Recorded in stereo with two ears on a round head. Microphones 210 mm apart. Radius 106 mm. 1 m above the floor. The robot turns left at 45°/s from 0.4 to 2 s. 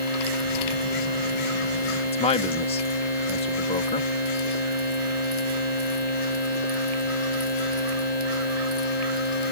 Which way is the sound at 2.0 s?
25° left (ahead or behind).